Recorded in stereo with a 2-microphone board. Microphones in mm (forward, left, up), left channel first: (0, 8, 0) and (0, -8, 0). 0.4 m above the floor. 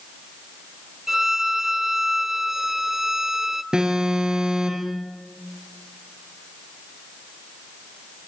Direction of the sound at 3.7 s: 55° right (ahead or behind).